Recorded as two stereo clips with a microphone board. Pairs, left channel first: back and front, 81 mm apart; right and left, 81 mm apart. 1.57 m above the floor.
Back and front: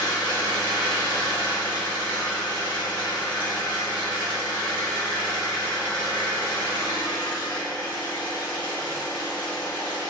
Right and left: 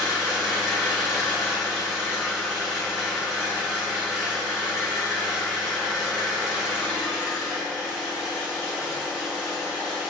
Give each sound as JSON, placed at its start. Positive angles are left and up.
{"t": 0.0, "sound": "an engine running", "azimuth_deg": 170, "distance_m": 1.5}